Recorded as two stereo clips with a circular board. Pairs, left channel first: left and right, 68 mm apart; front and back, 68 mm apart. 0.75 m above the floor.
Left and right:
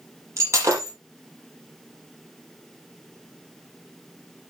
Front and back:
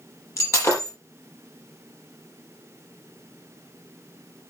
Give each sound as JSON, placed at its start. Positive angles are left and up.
{"t": 0.4, "sound": "breaking glass", "azimuth_deg": -40, "distance_m": 6.0}